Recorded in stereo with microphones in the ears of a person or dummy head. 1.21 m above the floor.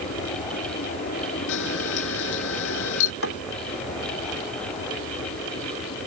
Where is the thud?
60° left (ahead or behind).